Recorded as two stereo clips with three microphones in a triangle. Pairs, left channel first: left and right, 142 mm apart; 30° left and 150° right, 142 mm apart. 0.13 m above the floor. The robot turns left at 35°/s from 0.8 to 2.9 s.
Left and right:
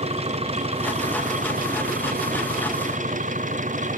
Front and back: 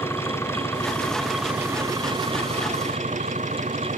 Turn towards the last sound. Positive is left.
turn(degrees=-115)